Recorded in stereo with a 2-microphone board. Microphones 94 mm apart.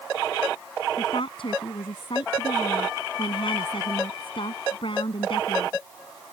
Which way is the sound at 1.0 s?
65° left (ahead or behind).